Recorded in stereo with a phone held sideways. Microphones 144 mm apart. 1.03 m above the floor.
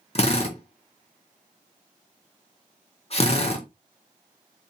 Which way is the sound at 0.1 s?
45° left (ahead or behind).